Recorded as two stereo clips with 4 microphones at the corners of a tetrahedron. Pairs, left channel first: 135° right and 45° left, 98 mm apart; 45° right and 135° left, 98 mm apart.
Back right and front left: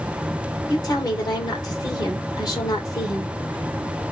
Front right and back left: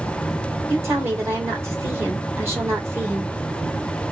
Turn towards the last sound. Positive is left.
turn(degrees=-170)